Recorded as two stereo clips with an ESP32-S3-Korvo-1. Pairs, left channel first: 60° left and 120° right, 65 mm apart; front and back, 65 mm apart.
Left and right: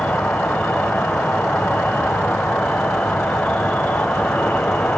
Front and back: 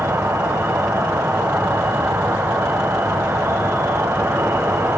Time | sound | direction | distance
0.0 | an insect | 130° left | 0.9 m